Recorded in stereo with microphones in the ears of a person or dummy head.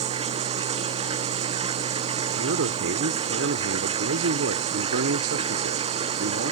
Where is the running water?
35° right (ahead or behind).